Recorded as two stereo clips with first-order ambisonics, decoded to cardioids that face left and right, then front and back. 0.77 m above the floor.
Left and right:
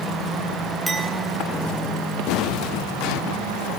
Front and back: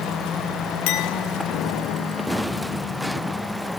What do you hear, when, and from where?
0.9 s a clink: 5° right, 4.5 m